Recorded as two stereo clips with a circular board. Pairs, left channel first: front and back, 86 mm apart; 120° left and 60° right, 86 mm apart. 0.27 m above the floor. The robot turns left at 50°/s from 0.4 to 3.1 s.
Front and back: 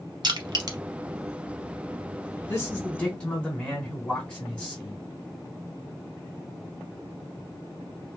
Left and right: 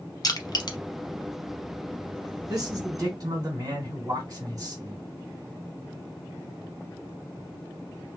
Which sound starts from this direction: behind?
Crushing, at 0.2 s.